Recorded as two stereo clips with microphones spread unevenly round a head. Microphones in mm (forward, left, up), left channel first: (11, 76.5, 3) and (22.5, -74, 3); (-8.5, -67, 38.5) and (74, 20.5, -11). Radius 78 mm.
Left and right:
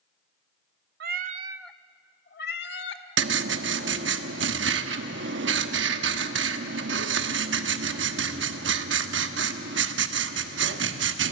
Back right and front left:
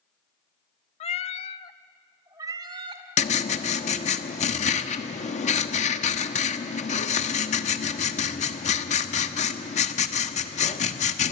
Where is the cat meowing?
115° right, 0.8 m; by 3.0 s 115° left, 1.6 m.